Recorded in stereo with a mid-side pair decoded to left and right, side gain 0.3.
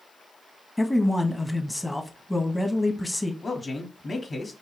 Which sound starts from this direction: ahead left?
A man speaking, at 3.4 s.